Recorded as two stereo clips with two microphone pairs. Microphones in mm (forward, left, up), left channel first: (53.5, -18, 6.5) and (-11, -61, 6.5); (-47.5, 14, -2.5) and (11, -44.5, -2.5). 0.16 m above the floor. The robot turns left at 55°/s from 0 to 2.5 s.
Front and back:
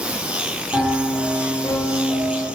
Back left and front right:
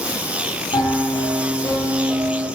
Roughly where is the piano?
Behind left.